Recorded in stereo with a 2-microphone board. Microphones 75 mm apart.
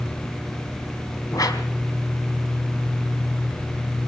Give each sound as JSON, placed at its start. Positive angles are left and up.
{"t": 1.3, "sound": "a whoosh", "side_deg": 55, "distance_m": 3.0}